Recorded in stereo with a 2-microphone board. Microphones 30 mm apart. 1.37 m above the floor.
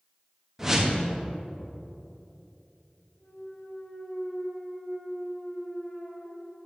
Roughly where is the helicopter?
I don't hear a helicopter.